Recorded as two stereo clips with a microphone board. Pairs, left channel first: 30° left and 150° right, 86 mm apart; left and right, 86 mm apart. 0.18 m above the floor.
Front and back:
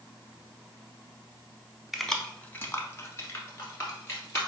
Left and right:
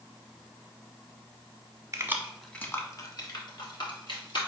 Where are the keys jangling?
65° right, 0.9 m; by 4.4 s 85° left, 2.5 m.